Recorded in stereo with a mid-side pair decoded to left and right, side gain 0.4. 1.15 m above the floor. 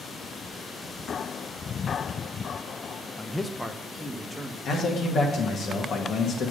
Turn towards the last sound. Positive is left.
turn(degrees=60)